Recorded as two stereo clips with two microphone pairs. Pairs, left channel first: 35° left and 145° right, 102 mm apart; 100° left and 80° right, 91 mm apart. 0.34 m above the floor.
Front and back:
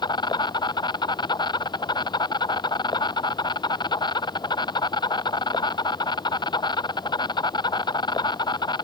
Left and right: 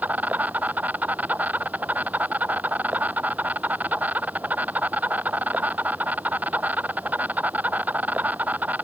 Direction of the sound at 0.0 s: 10° right.